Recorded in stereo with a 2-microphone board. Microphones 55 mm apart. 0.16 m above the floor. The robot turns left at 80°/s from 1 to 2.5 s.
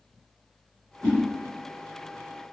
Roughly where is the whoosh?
Centre.